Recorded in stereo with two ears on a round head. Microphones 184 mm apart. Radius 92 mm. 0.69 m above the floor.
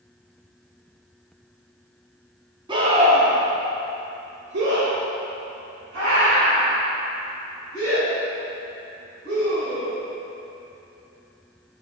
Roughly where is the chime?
No chime in this recording.